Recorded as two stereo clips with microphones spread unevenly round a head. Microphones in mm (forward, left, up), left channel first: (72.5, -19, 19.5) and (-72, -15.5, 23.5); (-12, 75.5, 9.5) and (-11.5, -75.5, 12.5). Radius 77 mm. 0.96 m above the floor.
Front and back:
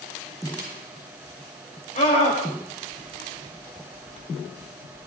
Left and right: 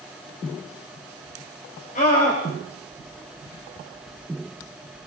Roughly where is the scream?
Ahead left.